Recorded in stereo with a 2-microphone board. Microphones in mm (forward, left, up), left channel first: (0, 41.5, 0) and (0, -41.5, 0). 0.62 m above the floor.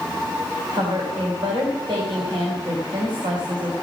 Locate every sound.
0.7 s a woman speaking: 80° right, 3.5 m